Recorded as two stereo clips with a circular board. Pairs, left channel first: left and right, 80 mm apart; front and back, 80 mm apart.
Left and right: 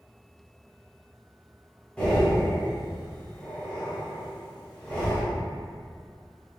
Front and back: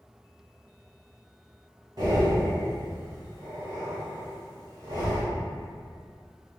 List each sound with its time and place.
2.0 s breathing: 160° left, 1.5 m